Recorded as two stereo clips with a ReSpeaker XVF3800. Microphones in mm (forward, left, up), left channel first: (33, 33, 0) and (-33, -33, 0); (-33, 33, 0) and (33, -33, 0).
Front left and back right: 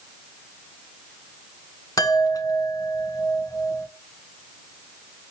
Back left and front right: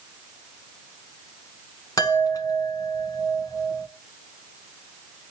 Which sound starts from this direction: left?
A chime, at 2.0 s.